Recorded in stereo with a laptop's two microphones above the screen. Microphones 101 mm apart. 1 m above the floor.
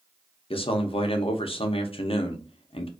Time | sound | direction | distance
0.5 | a man speaking | 65° left (ahead or behind) | 0.6 m